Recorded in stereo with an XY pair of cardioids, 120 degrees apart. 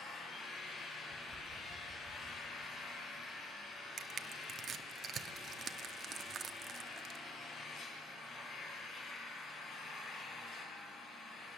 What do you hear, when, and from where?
0.0 s an engine running: 55° left, 6 m
1.1 s tapping: 15° left, 3.5 m
4.0 s crushing: 50° right, 0.9 m